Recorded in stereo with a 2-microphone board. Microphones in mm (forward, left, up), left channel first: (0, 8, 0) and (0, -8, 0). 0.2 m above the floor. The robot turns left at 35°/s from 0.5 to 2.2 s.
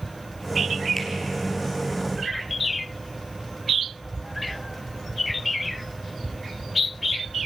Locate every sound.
1.0 s a finger snap: 15° left (ahead or behind), 4 m; by 1.1 s 10° left (ahead or behind), 4 m